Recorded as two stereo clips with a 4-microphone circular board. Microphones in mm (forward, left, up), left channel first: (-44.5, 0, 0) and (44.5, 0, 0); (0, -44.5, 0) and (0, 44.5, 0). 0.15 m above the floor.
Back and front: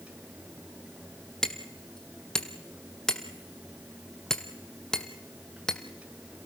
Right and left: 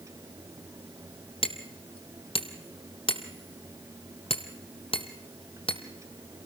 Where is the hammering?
95° right, 1.5 m.